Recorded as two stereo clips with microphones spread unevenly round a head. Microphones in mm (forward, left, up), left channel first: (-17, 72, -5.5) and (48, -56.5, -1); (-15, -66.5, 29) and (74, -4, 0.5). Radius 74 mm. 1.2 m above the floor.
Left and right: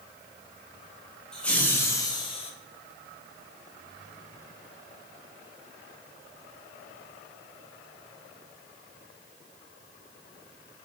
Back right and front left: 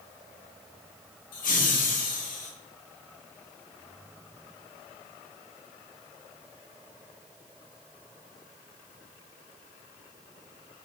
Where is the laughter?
155° right, 1.5 m; by 2.5 s 170° left, 1.1 m.